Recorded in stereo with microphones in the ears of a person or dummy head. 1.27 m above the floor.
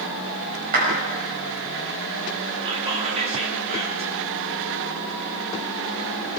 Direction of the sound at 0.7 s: 45° right (ahead or behind).